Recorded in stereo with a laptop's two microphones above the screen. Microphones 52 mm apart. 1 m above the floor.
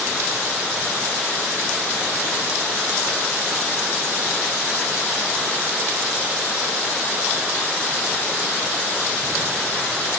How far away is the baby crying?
No baby crying in this recording.